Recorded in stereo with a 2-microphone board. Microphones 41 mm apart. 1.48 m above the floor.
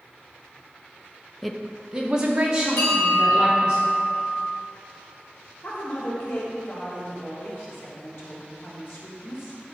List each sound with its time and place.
1.4 s a woman speaking: 5° left (ahead or behind), 0.6 m; by 3.8 s 25° right (ahead or behind), 4 m
2.8 s a bell: 60° left (ahead or behind), 3 m
5.6 s a woman speaking: 65° left (ahead or behind), 2 m